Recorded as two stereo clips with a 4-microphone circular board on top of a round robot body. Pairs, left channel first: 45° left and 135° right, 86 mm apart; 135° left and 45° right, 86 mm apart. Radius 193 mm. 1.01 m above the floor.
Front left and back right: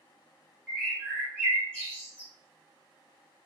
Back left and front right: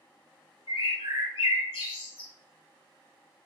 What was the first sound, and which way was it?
A bird, 125° left.